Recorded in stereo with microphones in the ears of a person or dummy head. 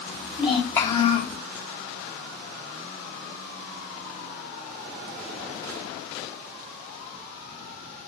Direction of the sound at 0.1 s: 15° right (ahead or behind).